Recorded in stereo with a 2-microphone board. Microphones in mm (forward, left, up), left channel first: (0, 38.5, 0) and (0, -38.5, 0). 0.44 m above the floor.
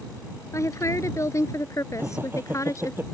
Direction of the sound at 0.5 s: 40° left (ahead or behind).